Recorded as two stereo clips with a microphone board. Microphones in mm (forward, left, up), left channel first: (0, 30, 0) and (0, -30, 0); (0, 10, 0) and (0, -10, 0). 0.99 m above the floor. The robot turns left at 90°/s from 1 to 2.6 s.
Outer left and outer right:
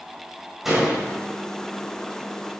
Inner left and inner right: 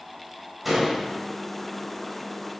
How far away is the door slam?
About 4 m.